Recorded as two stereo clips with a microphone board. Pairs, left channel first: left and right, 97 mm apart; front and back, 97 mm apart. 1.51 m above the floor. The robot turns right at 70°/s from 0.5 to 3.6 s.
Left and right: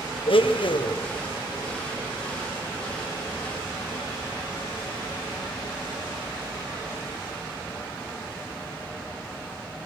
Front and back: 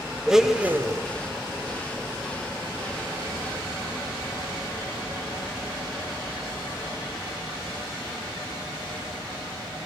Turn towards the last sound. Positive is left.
turn(degrees=-45)